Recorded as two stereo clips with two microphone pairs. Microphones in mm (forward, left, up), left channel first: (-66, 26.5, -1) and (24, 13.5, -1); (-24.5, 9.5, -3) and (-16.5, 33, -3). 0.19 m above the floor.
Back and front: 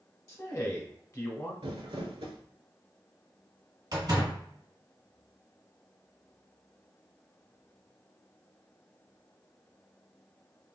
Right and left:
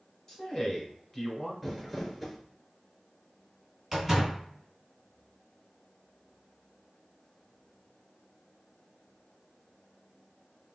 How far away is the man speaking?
About 1.2 m.